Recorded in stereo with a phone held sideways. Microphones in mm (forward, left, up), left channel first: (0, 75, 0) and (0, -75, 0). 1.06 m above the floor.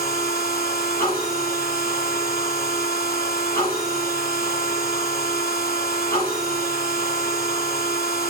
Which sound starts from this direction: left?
A machine running, at 0.0 s.